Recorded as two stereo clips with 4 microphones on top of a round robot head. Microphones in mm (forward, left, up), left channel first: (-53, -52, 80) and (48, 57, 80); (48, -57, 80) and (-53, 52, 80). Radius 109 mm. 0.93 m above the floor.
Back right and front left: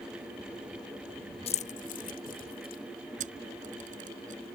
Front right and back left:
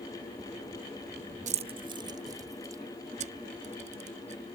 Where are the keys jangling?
175° left; by 2.8 s 160° right.